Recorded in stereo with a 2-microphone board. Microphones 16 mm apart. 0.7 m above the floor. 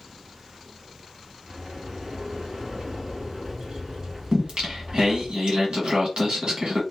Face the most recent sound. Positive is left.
turn(degrees=-70)  # may be behind; listen again after turning